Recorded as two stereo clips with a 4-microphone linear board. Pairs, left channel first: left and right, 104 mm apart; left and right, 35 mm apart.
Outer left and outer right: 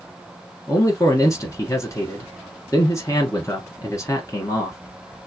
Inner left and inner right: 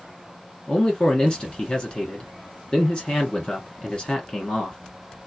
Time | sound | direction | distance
0.7 | a man speaking | 30° left (ahead or behind) | 1.4 m